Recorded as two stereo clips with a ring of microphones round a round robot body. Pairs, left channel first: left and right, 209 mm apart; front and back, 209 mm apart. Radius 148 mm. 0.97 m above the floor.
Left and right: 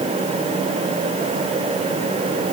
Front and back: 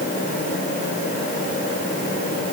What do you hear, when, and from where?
Only background noise.